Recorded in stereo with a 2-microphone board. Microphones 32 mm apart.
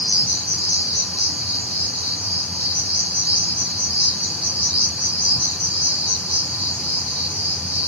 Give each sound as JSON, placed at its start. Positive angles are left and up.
{"t": 0.0, "sound": "an insect", "side_deg": -55, "distance_m": 5.5}